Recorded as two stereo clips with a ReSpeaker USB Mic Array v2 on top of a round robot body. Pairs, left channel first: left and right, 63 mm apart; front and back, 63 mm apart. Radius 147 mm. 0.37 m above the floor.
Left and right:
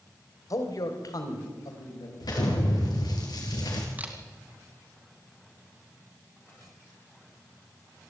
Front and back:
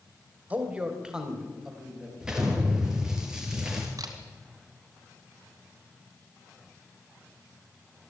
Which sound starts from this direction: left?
An explosion, at 2.2 s.